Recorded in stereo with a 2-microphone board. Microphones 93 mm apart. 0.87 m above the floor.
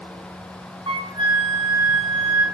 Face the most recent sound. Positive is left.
turn(degrees=-70)  # may be behind; listen again after turning